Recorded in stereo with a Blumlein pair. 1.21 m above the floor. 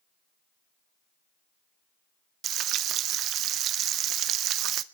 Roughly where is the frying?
Ahead right.